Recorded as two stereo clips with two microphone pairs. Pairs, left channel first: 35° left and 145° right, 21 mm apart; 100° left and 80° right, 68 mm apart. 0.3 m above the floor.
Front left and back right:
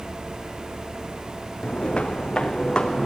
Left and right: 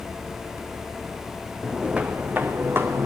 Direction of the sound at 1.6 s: 5° left.